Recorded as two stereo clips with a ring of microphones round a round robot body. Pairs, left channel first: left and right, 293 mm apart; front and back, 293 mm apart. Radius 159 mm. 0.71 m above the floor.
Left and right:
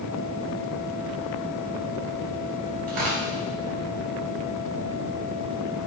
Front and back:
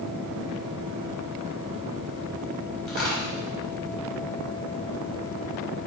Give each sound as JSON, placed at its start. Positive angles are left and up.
{"t": 2.9, "sound": "tearing paper", "azimuth_deg": -90, "distance_m": 4.0}